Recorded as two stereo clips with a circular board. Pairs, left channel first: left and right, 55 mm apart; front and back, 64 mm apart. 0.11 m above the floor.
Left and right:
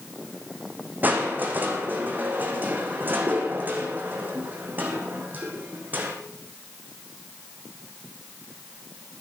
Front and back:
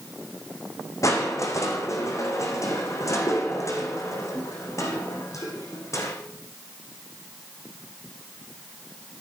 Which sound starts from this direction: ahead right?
Crushing, at 1.0 s.